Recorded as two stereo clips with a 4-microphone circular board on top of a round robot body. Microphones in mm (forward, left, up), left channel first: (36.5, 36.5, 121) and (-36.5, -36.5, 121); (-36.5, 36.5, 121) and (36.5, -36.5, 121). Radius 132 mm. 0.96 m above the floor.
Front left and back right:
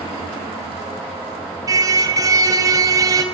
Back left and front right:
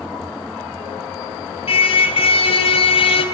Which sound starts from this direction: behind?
A car horn, at 1.7 s.